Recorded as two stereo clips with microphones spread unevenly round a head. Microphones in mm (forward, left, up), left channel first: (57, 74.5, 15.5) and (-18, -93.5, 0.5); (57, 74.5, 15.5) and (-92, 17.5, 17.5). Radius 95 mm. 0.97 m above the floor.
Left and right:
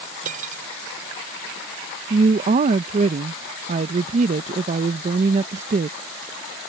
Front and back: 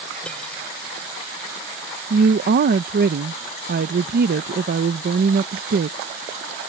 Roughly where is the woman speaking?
Behind.